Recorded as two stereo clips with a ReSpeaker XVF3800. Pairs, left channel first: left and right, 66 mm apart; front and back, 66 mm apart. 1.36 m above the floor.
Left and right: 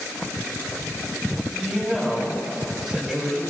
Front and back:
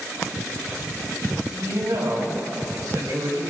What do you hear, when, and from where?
1.5 s a woman speaking: 165° right, 9 m